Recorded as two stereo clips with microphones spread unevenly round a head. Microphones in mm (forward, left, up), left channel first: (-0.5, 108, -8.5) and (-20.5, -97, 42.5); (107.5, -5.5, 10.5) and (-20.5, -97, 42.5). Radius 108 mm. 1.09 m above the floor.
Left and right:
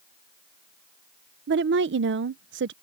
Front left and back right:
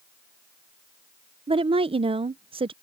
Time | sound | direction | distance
1.5 | a woman speaking | 90° right | ?